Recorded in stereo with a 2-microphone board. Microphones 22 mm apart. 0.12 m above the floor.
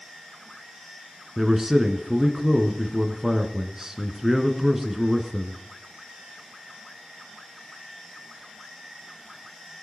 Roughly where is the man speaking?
Centre.